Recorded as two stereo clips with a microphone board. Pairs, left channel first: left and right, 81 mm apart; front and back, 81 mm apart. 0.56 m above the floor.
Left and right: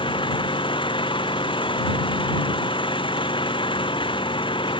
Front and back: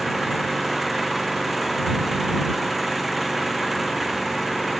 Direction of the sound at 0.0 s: 90° left.